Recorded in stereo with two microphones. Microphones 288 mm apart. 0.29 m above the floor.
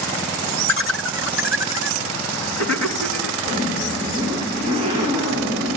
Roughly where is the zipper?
Centre.